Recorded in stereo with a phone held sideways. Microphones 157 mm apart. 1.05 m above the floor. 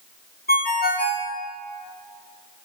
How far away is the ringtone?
About 1.6 m.